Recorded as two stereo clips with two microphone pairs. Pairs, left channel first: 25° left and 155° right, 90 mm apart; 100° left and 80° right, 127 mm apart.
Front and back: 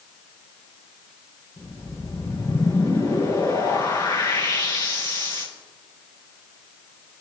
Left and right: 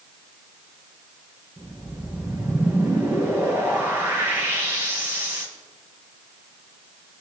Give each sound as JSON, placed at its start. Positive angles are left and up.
{"t": 1.6, "sound": "a whoosh", "azimuth_deg": -10, "distance_m": 4.5}